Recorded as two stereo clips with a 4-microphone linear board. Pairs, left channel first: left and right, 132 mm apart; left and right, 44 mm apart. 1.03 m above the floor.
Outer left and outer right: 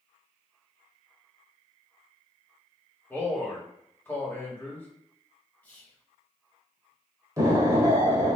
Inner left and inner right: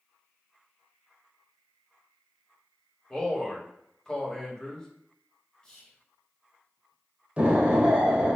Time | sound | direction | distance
3.1 | a man speaking | 15° left (ahead or behind) | 1.7 m
5.6 | whispering | 10° left (ahead or behind) | 1.4 m
7.4 | an explosion | 25° right (ahead or behind) | 1.1 m